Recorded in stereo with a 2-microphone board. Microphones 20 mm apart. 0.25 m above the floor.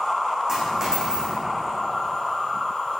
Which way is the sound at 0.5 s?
30° right (ahead or behind).